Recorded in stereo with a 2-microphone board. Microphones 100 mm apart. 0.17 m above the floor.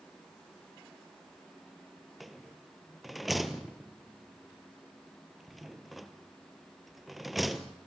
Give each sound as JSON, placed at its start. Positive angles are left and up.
{"t": 2.2, "sound": "a rattle", "side_deg": 0, "distance_m": 1.3}